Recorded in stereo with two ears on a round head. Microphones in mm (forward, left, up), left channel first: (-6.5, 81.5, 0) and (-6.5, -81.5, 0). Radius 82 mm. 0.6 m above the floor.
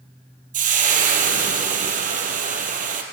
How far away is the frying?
About 2.5 m.